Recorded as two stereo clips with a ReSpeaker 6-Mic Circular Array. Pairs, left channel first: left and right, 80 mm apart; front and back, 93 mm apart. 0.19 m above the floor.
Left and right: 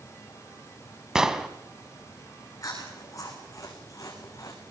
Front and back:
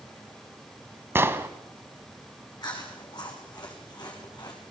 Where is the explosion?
165° right, 1.0 m.